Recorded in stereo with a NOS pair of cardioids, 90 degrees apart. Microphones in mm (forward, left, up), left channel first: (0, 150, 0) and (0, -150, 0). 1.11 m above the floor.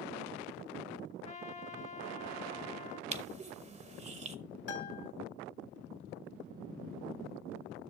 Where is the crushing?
25° right, 1.0 m.